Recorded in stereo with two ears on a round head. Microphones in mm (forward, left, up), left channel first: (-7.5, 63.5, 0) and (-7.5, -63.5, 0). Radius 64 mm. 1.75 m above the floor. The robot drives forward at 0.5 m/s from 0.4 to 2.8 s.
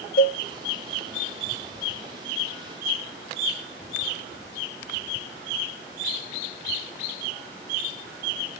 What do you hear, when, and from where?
0.2 s a cowbell: 65° left (ahead or behind), 0.5 m